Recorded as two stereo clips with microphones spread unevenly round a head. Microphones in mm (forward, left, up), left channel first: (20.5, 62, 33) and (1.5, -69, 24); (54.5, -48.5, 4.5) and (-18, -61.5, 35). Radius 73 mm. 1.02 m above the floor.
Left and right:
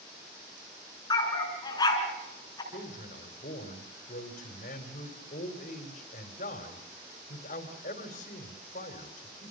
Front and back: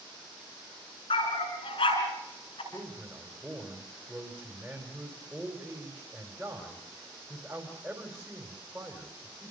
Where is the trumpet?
No trumpet in this recording.